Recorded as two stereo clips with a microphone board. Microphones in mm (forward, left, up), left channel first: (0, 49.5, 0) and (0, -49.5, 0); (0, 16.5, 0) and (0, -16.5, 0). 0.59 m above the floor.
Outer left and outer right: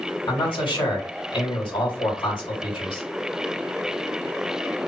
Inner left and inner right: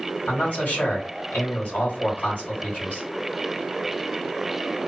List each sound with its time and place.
0.3 s a man speaking: 60° left (ahead or behind), 2 m